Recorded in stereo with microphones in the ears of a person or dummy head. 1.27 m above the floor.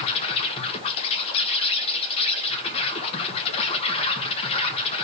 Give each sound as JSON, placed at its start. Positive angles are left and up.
{"t": 0.0, "sound": "an insect", "side_deg": 30, "distance_m": 1.3}